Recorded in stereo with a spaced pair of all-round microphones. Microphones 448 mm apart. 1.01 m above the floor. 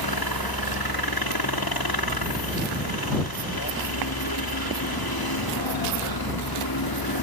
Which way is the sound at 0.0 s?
60° left (ahead or behind).